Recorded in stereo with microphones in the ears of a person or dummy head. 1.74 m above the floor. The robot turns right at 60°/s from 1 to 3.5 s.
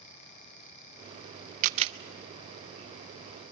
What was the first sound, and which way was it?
A camera shutter, 45° right (ahead or behind).